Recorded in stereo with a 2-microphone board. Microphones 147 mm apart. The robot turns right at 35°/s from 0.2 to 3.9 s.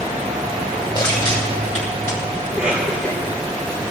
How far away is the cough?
About 5.5 m.